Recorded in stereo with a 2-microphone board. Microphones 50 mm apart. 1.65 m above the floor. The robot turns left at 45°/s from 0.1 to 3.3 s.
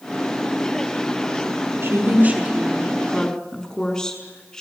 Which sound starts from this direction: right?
A woman speaking, at 1.8 s.